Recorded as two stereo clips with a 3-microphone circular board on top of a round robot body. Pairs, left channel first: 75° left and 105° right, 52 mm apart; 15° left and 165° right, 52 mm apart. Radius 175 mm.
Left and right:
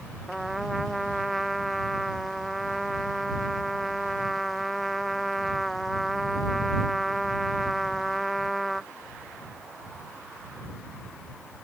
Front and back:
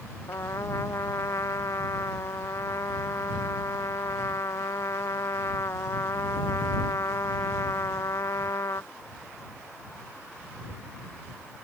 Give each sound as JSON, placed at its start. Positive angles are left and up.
{"t": 0.3, "sound": "a trumpet", "azimuth_deg": -15}